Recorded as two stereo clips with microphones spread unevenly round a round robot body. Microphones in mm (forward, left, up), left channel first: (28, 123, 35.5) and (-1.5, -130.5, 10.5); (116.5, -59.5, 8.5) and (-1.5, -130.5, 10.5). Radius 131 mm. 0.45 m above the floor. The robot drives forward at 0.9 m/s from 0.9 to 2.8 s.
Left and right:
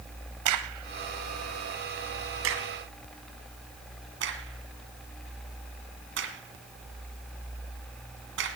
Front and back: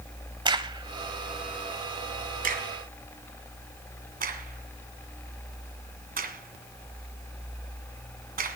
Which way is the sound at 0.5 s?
90° right.